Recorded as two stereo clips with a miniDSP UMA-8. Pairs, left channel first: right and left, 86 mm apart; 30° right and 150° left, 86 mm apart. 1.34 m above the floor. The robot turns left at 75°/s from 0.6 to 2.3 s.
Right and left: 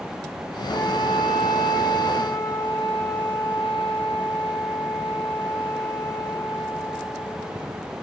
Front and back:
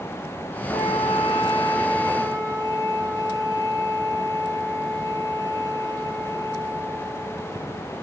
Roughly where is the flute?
Ahead right.